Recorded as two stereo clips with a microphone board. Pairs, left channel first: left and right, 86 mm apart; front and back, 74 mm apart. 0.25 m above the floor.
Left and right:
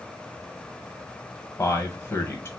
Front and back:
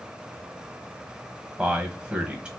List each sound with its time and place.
1.6 s a man speaking: 115° left, 1.3 m